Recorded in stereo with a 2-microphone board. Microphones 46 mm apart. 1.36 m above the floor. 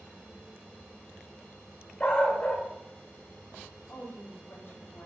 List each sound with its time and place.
2.0 s a dog barking: 25° left (ahead or behind), 1.7 m
3.9 s a woman speaking: 50° left (ahead or behind), 3 m